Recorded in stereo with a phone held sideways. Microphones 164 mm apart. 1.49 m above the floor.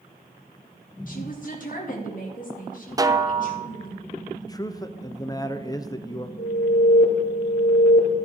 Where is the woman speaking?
55° left (ahead or behind), 2.5 m.